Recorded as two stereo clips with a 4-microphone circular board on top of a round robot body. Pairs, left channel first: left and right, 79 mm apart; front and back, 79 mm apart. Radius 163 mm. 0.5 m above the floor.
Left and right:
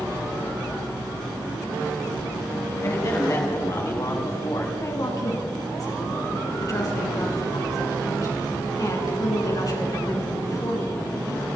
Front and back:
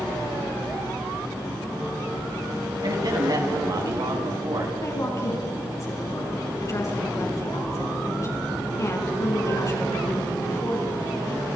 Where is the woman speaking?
50° left, 6.5 m.